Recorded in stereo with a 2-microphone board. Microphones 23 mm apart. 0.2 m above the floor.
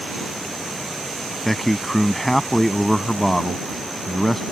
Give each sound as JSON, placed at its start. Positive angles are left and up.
{"t": 1.4, "sound": "a man speaking", "side_deg": 10}